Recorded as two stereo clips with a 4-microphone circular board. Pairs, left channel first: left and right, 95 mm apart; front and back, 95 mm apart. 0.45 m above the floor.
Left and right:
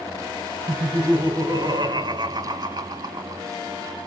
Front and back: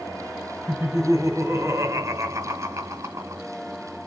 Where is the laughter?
120° right, 2.5 m.